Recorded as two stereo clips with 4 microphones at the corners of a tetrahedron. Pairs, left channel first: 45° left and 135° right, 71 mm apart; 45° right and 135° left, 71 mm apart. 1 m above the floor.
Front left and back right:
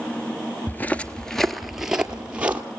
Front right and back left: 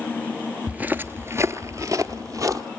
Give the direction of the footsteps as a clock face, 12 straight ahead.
9 o'clock.